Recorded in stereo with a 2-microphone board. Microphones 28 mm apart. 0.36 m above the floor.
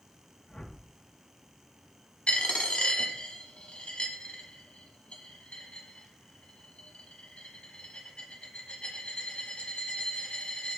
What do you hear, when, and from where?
0.5 s a whoosh: 30° left (ahead or behind), 0.8 m
2.3 s a dropped coin: 45° left (ahead or behind), 1.0 m